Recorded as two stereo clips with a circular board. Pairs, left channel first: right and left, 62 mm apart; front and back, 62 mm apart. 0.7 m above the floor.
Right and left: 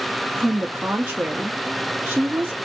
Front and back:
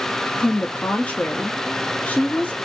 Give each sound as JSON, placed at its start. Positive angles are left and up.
{"t": 0.4, "sound": "a woman speaking", "azimuth_deg": 50, "distance_m": 0.6}